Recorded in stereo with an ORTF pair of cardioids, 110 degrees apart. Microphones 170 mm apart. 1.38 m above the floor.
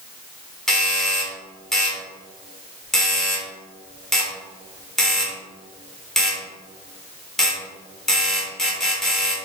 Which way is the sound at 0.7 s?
5° left.